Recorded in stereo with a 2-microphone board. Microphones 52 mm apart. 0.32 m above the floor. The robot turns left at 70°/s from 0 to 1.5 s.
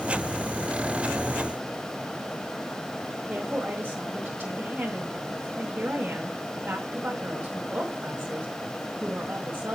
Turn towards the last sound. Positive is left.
turn(degrees=-40)  # may be behind; listen again after turning